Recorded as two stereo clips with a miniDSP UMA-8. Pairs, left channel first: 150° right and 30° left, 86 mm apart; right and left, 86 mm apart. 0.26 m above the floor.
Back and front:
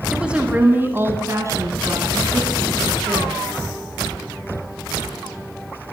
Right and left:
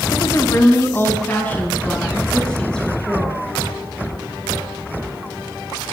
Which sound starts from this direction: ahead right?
A woman speaking, at 0.1 s.